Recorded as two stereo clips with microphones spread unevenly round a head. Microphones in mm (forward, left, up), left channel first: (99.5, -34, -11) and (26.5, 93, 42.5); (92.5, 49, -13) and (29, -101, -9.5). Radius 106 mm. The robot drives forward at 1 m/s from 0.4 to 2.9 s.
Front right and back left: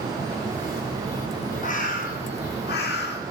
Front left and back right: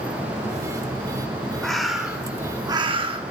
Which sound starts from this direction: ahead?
A bird, at 1.6 s.